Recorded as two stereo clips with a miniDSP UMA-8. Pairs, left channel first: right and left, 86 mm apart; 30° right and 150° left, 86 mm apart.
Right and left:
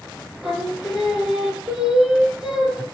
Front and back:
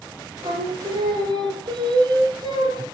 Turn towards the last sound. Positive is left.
turn(degrees=165)